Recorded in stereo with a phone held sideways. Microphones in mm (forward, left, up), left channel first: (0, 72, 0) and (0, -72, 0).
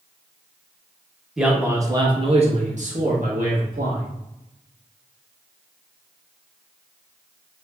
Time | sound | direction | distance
1.4 | a man speaking | 5° right (ahead or behind) | 0.9 m